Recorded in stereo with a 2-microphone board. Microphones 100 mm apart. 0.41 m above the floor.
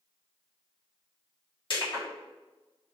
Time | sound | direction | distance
1.7 | crushing | 55° left (ahead or behind) | 1.6 m